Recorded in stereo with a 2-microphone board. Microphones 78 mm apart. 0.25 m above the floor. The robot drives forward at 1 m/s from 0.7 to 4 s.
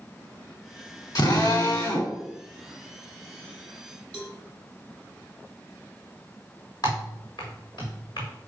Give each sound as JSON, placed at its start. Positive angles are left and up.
{"t": 1.1, "sound": "a drill", "side_deg": 55, "distance_m": 2.5}
{"t": 4.1, "sound": "a cowbell", "side_deg": 10, "distance_m": 1.4}
{"t": 6.8, "sound": "typing on a keyboard", "side_deg": 65, "distance_m": 3.5}